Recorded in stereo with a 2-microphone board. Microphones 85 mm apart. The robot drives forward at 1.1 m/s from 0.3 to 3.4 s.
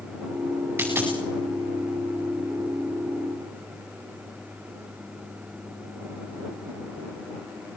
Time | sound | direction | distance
0.8 | a dropped coin | 20° right (ahead or behind) | 8.5 m